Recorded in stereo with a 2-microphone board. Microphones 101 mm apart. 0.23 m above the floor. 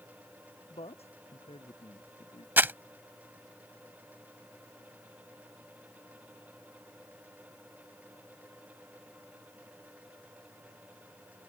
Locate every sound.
0.7 s a man speaking: 85° left
2.6 s crumpling: 20° right (ahead or behind)